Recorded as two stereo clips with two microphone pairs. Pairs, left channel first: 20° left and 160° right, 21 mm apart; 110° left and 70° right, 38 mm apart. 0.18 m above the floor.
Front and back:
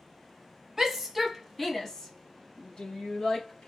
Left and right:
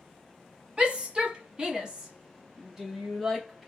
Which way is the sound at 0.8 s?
95° right.